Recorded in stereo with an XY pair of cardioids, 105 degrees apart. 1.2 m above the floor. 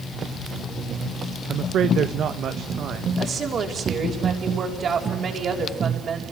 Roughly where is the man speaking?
Ahead right.